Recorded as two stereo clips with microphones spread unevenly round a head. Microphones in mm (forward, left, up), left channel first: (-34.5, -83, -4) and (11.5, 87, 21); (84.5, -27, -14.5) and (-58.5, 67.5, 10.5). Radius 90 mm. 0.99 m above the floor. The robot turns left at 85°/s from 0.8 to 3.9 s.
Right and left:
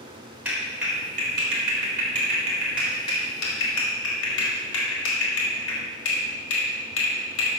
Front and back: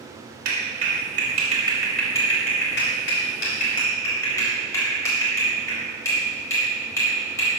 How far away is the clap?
About 3.5 m.